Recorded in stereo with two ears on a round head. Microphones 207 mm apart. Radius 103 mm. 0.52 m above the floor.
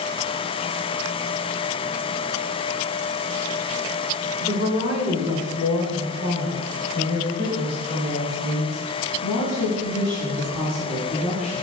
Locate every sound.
4.4 s a woman speaking: 30° left (ahead or behind), 1.6 m; by 11.6 s 70° left (ahead or behind), 4.5 m